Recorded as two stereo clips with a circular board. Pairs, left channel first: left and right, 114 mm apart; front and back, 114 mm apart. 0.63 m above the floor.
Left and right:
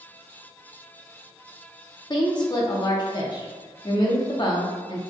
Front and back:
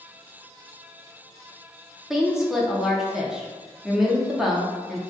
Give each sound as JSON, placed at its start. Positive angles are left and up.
{"t": 2.1, "sound": "a woman speaking", "azimuth_deg": 95, "distance_m": 0.7}